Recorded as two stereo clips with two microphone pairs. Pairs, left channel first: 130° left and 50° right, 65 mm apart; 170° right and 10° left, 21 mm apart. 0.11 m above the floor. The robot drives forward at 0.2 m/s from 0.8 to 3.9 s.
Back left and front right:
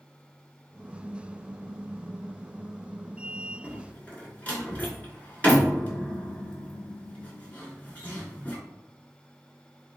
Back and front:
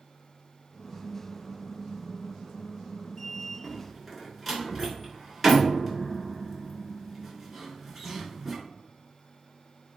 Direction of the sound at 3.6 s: 115° left.